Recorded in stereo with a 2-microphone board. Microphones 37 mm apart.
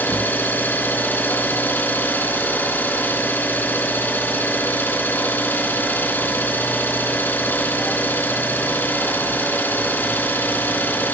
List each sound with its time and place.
0.0 s an engine running: 70° left (ahead or behind), 4.5 m